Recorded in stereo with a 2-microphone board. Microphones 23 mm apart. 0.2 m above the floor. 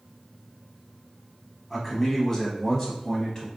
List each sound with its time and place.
1.7 s a man speaking: 5° left (ahead or behind), 1.2 m; by 3.5 s 25° left (ahead or behind), 1.2 m